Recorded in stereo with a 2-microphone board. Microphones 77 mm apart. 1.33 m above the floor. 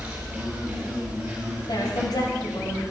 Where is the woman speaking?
65° left (ahead or behind), 5.5 m.